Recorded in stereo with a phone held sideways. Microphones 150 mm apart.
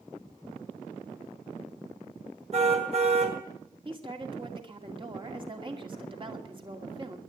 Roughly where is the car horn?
Right.